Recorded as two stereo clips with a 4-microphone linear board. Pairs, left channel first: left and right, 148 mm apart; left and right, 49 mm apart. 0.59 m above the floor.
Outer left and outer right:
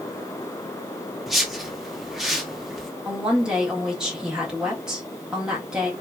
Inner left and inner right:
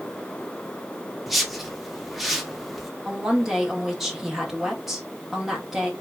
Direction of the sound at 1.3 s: Centre (ahead or behind).